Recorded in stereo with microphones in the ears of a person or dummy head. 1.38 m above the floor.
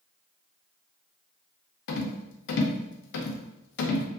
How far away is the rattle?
About 0.5 m.